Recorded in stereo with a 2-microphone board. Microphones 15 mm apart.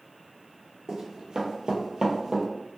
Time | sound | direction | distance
0.9 | running footsteps | 50° right (ahead or behind) | 1.0 m